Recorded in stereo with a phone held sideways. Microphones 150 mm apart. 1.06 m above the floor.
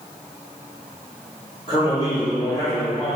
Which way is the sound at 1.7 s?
35° left (ahead or behind).